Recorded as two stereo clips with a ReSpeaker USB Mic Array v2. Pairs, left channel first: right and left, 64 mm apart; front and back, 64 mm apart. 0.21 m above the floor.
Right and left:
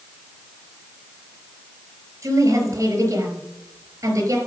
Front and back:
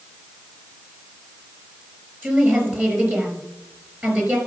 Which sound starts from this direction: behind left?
A woman speaking, at 2.2 s.